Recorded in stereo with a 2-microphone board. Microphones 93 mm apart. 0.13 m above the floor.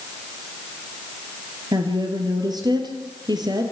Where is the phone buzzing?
No phone buzzing in this recording.